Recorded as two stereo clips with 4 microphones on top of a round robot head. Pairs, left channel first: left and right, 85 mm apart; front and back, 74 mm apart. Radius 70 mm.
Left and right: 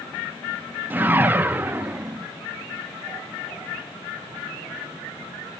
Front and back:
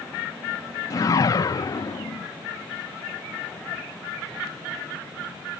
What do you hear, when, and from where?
0.9 s a whoosh: 25° right, 0.7 m